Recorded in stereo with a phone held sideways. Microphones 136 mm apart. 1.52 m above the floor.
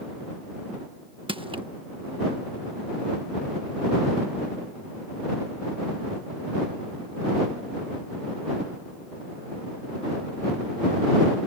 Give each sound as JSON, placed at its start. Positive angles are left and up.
{"t": 1.3, "sound": "crushing", "side_deg": -40}